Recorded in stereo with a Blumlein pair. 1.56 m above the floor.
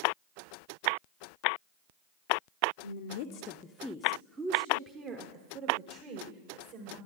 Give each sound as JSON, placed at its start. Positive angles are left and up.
{"t": 2.8, "sound": "a woman speaking", "azimuth_deg": 65, "distance_m": 0.7}